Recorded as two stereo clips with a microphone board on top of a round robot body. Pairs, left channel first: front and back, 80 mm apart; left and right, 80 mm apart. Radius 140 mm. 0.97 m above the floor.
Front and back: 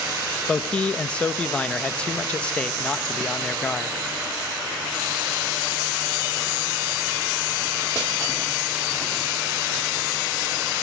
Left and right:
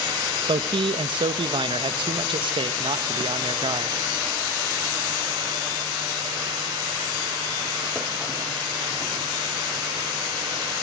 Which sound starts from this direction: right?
A man speaking, at 0.5 s.